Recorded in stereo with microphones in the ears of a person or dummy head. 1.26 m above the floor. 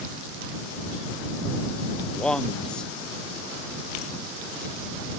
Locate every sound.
2.1 s a man speaking: 5° left (ahead or behind)